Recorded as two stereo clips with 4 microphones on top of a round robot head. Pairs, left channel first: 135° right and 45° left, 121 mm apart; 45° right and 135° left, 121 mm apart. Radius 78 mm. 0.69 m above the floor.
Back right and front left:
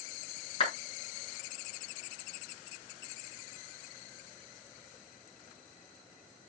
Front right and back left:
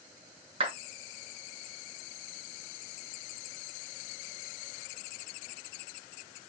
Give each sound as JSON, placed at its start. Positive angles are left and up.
{"t": 0.6, "sound": "a clap", "azimuth_deg": 180, "distance_m": 7.5}